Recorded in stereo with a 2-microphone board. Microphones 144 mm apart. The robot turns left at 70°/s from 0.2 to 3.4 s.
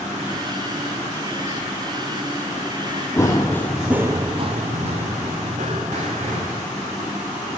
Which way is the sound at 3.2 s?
20° left (ahead or behind).